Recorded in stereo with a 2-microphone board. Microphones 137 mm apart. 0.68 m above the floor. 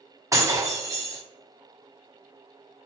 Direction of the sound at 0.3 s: 25° right (ahead or behind).